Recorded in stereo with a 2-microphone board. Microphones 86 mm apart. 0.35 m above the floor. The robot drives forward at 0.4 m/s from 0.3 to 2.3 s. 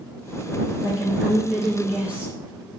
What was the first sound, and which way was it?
A woman speaking, 15° right (ahead or behind).